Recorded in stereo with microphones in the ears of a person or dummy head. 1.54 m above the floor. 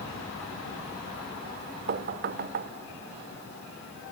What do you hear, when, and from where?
1.9 s knocking: 50° right (ahead or behind), 0.6 m